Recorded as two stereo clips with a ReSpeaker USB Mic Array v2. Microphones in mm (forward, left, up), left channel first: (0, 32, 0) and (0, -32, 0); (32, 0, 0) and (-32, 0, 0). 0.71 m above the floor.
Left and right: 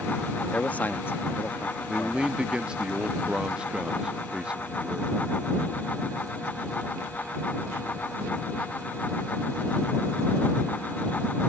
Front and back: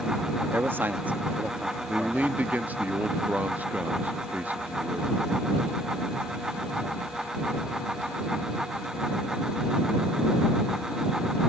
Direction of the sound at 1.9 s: 145° right.